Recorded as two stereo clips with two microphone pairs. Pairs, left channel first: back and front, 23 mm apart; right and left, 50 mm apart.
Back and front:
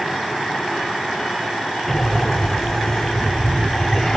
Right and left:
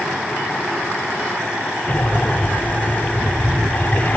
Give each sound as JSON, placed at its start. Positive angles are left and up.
{"t": 1.9, "sound": "breathing", "azimuth_deg": -115}